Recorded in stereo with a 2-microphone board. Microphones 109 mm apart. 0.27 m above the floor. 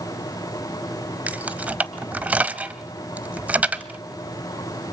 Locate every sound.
1.3 s keys jangling: 15° right (ahead or behind), 0.8 m